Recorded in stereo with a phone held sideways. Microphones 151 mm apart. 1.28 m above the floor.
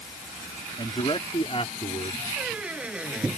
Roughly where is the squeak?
Centre.